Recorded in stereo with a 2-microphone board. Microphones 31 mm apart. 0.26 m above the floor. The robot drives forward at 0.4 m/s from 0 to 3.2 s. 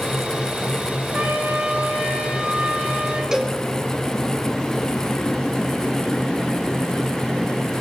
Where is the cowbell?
20° right (ahead or behind), 2.5 m.